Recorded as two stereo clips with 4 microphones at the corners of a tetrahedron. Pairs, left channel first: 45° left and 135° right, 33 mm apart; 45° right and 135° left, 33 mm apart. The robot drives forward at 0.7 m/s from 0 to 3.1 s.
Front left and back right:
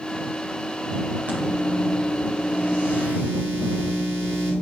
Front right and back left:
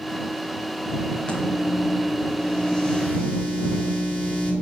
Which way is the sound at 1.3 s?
100° right.